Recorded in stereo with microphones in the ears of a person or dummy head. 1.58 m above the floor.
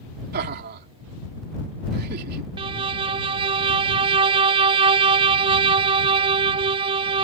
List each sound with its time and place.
0.3 s laughter: 55° right (ahead or behind)
2.6 s a violin: 25° right (ahead or behind)